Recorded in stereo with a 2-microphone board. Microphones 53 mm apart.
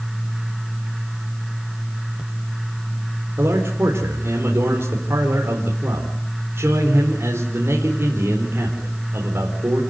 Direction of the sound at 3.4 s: 50° right (ahead or behind).